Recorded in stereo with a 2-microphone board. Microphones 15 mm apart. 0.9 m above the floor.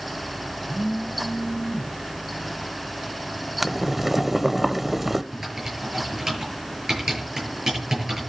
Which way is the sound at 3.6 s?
10° right (ahead or behind).